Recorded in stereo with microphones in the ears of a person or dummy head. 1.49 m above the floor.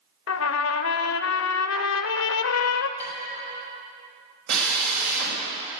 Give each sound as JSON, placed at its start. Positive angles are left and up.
{"t": 0.3, "sound": "a trumpet", "side_deg": 80, "distance_m": 0.8}
{"t": 3.0, "sound": "dishes clattering", "side_deg": 10, "distance_m": 7.5}
{"t": 4.5, "sound": "a drill", "side_deg": -70, "distance_m": 4.0}